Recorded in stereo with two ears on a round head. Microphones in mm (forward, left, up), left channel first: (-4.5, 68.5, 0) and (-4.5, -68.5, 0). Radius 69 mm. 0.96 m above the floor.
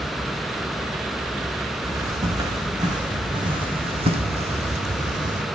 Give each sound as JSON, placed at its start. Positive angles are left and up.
{"t": 1.8, "sound": "footsteps", "side_deg": -20, "distance_m": 3.5}